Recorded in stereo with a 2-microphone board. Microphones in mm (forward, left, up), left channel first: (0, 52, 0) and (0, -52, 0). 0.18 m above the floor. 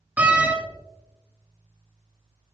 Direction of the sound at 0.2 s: 15° right (ahead or behind).